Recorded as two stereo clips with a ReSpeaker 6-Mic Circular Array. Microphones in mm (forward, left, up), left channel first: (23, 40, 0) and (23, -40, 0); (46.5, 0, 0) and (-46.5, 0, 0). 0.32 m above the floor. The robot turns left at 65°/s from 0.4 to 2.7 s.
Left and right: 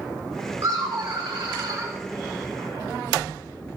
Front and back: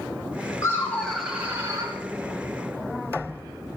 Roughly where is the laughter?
Ahead right.